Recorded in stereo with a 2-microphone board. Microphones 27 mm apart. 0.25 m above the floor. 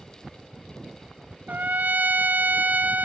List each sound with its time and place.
1.5 s a trumpet: 70° right (ahead or behind), 0.6 m